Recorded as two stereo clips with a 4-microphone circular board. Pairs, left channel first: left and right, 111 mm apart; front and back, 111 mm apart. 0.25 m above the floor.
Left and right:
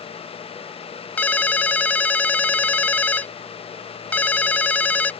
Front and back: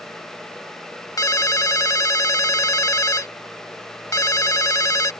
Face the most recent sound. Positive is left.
turn(degrees=25)